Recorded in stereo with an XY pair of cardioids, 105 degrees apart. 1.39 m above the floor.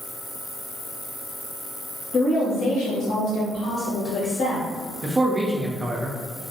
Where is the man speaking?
25° right, 0.5 m.